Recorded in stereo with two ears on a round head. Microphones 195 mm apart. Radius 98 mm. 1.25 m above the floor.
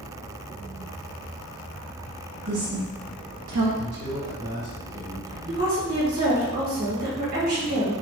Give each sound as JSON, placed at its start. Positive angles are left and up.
{"t": 2.5, "sound": "a woman speaking", "side_deg": -60, "distance_m": 1.4}
{"t": 3.8, "sound": "a man speaking", "side_deg": -50, "distance_m": 1.5}
{"t": 5.5, "sound": "a woman speaking", "side_deg": -45, "distance_m": 1.7}